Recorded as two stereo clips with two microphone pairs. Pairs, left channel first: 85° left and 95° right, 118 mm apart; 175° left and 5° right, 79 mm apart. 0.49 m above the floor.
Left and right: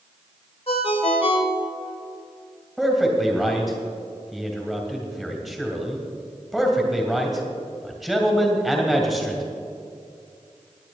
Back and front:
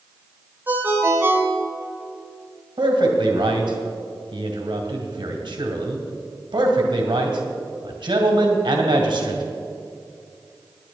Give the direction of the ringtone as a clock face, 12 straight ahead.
10 o'clock.